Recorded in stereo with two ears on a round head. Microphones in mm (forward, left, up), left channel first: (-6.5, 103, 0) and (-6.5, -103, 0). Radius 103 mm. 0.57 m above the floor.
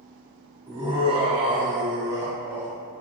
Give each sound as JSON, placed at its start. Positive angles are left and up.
{"t": 0.7, "sound": "laughter", "side_deg": -25, "distance_m": 1.0}